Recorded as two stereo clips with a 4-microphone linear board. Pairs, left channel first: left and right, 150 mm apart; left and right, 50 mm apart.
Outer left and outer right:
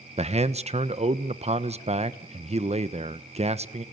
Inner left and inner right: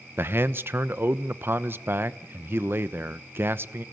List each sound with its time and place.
0.2 s a man speaking: 45° right (ahead or behind), 1.0 m